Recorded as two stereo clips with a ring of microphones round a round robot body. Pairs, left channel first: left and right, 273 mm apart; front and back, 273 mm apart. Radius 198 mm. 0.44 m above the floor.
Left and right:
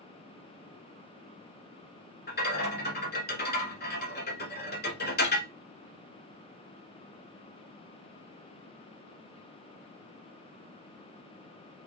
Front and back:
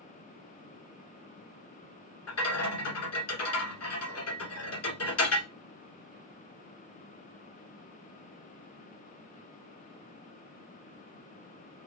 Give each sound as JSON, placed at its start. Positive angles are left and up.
{"t": 2.3, "sound": "a rattle", "azimuth_deg": 35, "distance_m": 1.3}